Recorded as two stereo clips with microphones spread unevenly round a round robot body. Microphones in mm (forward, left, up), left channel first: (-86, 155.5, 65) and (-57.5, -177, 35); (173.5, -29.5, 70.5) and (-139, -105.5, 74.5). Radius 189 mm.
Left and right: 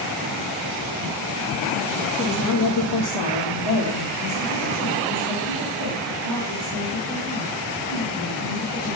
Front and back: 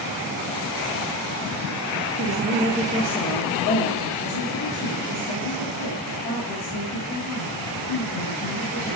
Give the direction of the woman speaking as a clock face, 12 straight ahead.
7 o'clock.